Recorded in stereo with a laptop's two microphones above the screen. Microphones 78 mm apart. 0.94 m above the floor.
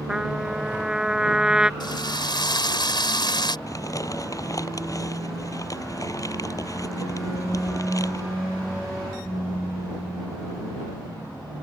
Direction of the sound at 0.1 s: 10° right (ahead or behind).